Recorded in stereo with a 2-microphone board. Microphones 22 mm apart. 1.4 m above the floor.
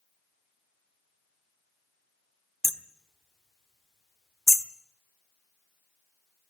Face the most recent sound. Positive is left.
turn(degrees=15)  # may be behind; listen again after turning